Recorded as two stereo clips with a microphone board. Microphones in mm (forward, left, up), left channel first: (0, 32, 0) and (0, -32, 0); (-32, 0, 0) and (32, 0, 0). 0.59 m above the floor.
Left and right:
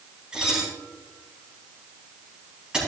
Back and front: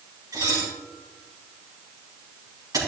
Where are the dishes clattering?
15° right, 4 m.